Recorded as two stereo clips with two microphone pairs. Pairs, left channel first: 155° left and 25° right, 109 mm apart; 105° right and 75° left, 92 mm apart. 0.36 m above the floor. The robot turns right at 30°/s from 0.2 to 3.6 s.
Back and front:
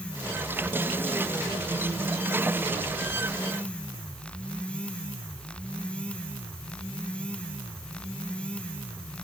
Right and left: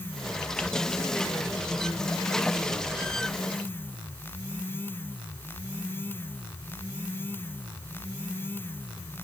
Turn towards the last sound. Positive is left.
No sound to turn to.